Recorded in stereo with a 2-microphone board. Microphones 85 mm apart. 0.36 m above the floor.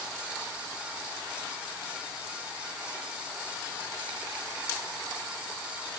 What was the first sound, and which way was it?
Only background noise.